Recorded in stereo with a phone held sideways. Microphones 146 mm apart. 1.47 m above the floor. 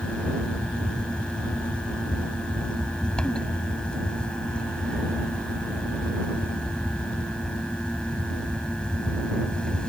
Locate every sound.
0.0 s a fan: 5° left (ahead or behind)